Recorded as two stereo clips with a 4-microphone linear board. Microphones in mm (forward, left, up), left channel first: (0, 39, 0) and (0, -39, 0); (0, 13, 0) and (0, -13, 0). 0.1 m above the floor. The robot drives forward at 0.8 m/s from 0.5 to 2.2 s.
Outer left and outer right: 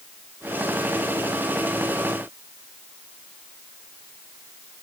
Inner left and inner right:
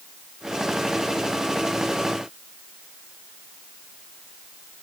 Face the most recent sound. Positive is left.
No sound to turn to.